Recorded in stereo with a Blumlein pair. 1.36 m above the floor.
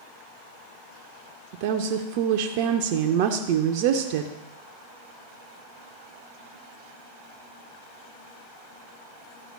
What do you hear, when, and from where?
1.5 s a woman speaking: 45° right, 0.6 m